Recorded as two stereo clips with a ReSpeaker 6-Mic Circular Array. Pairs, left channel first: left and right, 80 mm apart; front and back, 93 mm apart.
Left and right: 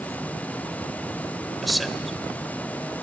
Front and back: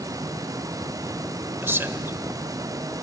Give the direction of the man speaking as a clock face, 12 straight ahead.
6 o'clock.